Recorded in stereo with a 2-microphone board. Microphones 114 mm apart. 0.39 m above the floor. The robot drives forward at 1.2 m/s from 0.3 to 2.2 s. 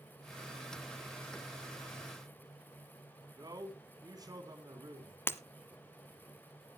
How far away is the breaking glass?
About 0.9 m.